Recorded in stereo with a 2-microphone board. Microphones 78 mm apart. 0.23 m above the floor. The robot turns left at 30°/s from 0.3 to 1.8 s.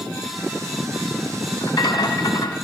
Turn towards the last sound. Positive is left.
turn(degrees=50)  # may be behind; listen again after turning